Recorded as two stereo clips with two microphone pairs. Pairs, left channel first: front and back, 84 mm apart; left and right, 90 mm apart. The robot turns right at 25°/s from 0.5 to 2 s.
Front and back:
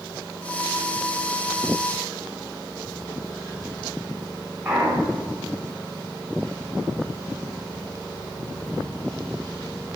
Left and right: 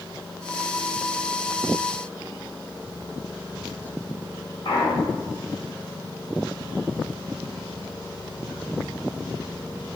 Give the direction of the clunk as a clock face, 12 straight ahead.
8 o'clock.